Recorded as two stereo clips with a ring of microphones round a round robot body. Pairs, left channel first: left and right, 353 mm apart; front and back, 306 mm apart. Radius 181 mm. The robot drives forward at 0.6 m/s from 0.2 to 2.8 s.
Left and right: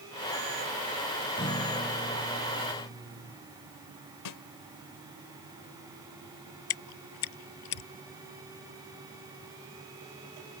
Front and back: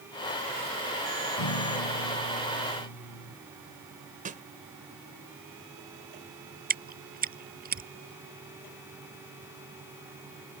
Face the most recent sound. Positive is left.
turn(degrees=120)